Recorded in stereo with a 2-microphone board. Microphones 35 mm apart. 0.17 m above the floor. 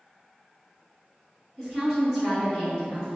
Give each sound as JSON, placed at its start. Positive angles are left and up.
{"t": 1.6, "sound": "a woman speaking", "side_deg": 0, "distance_m": 1.9}